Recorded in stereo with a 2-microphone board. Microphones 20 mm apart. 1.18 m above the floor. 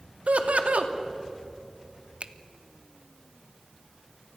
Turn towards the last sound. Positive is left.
turn(degrees=-65)  # may be behind; listen again after turning